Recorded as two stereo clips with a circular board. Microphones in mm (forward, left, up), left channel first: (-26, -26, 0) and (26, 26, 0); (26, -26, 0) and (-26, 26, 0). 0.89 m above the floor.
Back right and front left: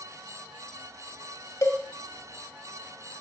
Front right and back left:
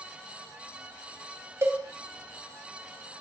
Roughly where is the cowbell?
Behind.